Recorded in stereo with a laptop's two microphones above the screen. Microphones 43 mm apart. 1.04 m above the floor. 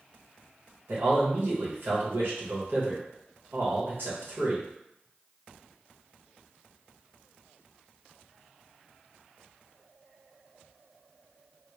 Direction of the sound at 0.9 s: 60° right (ahead or behind).